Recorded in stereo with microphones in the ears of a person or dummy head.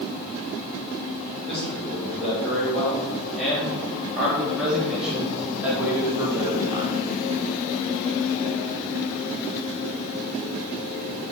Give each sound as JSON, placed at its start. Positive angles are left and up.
{"t": 1.4, "sound": "a man speaking", "side_deg": 5, "distance_m": 5.5}